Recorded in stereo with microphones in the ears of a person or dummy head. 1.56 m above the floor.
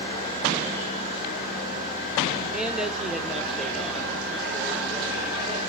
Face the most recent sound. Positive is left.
turn(degrees=0)  # may be behind; listen again after turning